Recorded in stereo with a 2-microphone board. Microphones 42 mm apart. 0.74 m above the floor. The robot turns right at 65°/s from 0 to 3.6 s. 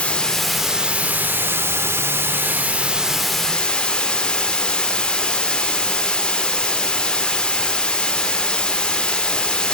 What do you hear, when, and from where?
0.0 s running water: 150° left, 1.0 m; by 9.7 s 20° left, 1.0 m